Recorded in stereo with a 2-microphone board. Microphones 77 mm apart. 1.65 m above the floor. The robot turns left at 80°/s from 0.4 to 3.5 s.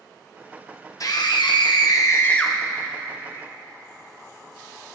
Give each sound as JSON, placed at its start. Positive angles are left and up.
{"t": 1.0, "sound": "a scream", "azimuth_deg": 130, "distance_m": 1.5}